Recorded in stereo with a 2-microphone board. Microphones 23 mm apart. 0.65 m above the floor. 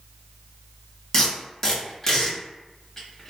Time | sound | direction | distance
1.1 | tape being pulled | 20° left (ahead or behind) | 1.0 m